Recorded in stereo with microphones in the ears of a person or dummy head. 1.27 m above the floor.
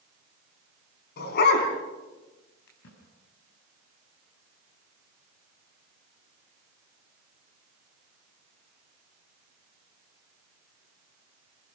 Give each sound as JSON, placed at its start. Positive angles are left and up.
{"t": 1.2, "sound": "a dog barking", "side_deg": 65, "distance_m": 4.5}
{"t": 2.7, "sound": "a splash", "side_deg": 70, "distance_m": 6.0}